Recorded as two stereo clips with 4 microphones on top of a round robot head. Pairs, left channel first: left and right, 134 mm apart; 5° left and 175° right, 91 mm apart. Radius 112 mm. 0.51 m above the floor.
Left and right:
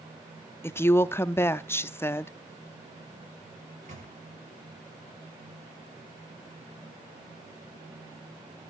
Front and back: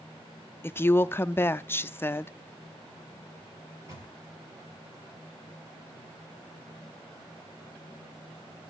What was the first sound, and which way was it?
A woman speaking, 35° left.